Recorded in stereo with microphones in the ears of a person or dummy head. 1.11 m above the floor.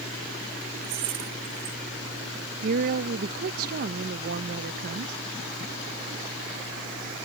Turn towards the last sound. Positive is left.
turn(degrees=-55)  # may be behind; listen again after turning